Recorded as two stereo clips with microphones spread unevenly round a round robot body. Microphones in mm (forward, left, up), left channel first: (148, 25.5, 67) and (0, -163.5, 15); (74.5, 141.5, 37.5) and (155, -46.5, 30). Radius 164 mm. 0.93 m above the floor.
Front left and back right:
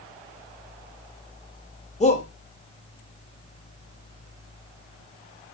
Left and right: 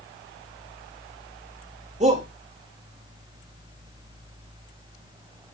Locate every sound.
2.0 s a shout: 15° right, 2 m